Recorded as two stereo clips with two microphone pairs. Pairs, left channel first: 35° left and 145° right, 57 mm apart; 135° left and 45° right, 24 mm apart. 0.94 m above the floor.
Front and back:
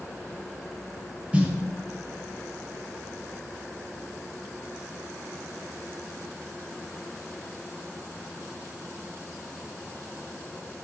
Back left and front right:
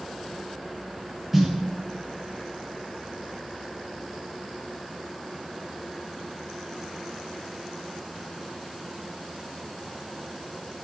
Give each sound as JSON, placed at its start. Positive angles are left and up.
{"t": 1.3, "sound": "a snare drum", "azimuth_deg": -115, "distance_m": 0.6}